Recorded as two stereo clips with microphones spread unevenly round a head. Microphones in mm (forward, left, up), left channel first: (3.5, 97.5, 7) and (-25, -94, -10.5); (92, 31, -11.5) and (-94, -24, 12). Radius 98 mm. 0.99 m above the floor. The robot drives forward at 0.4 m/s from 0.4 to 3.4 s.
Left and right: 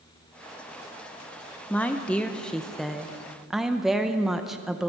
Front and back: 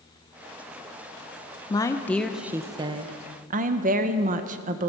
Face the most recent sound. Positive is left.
turn(degrees=-175)